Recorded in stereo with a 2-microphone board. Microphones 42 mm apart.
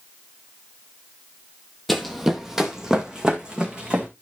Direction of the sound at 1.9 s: 5° left (ahead or behind).